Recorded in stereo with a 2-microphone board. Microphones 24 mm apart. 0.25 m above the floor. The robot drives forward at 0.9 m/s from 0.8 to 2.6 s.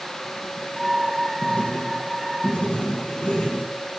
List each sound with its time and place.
1.4 s writing: 65° left (ahead or behind), 5 m; by 4.0 s 55° left (ahead or behind), 5.5 m